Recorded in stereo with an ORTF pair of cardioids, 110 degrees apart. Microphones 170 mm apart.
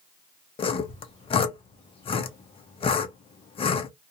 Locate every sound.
0.6 s sawing: 35° left, 0.6 m